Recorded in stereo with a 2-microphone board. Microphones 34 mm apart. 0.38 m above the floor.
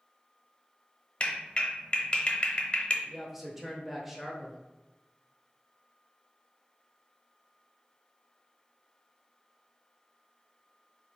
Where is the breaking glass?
I don't hear breaking glass.